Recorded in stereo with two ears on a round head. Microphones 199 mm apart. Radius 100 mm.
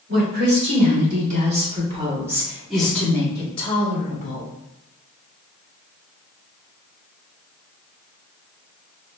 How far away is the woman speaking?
About 1.8 m.